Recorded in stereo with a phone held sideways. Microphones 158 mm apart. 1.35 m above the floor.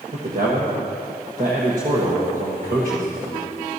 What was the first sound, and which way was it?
A man speaking, 55° right (ahead or behind).